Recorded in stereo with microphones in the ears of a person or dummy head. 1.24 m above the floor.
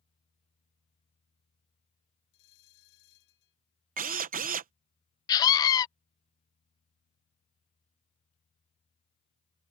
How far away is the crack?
I don't hear a crack.